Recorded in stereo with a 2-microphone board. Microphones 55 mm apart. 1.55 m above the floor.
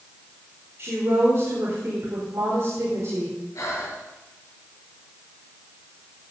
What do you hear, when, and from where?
0.8 s a woman speaking: 50° right (ahead or behind), 4 m
3.5 s breathing: 65° left (ahead or behind), 5 m